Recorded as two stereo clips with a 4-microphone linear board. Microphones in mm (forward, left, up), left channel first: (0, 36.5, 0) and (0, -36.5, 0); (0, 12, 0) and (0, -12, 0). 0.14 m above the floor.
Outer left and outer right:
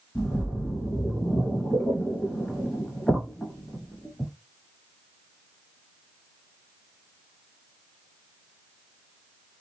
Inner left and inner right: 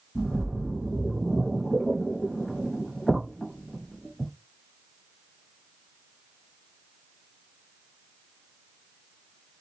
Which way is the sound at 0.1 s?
10° left (ahead or behind).